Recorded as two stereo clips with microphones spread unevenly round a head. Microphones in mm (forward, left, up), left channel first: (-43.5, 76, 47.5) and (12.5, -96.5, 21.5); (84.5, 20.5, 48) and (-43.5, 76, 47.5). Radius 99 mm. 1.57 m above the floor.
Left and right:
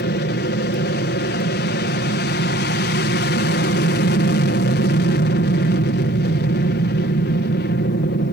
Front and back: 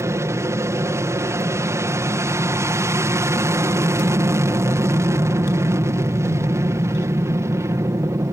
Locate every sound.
0.0 s an aircraft: 90° left